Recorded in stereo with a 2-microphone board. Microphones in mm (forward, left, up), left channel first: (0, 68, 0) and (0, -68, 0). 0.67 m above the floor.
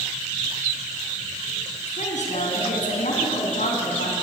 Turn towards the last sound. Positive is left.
turn(degrees=80)